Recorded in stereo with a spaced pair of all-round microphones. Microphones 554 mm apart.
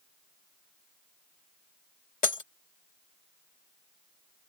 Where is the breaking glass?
65° left (ahead or behind).